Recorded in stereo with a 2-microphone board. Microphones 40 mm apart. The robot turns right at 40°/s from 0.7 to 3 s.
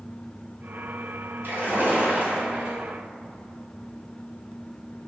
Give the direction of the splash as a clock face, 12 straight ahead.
3 o'clock.